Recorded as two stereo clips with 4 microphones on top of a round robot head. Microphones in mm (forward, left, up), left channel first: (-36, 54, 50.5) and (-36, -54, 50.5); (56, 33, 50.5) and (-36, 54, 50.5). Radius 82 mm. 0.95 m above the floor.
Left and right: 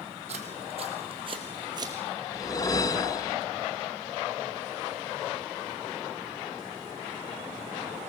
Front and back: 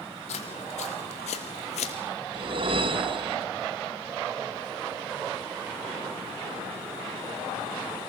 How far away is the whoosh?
About 1.1 m.